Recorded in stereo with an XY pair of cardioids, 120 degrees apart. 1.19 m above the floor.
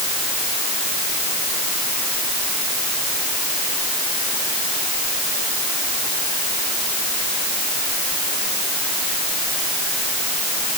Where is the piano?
I don't hear a piano.